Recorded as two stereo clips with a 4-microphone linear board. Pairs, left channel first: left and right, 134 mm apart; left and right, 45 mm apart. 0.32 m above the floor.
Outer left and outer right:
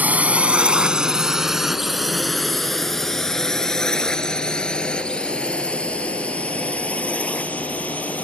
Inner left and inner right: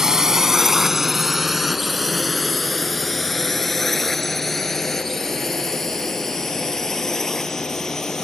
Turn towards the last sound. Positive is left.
turn(degrees=10)  # may be behind; listen again after turning